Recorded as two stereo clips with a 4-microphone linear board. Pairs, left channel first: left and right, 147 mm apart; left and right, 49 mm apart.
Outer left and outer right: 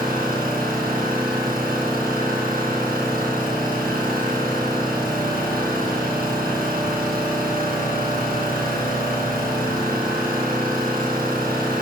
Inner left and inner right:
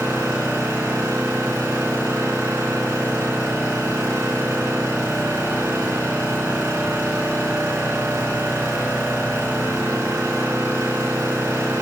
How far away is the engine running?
About 3.5 m.